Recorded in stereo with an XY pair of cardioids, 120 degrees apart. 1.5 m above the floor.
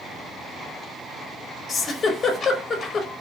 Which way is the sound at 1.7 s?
35° left.